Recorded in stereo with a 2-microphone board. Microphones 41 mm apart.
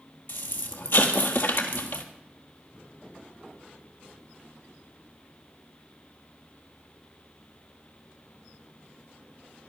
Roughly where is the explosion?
Left.